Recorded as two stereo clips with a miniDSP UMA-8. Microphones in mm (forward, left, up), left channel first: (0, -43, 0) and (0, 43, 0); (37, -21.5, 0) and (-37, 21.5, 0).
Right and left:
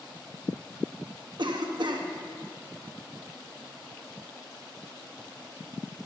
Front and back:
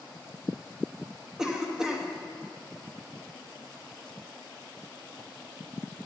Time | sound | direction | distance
1.4 | a cough | 65° left | 1.2 m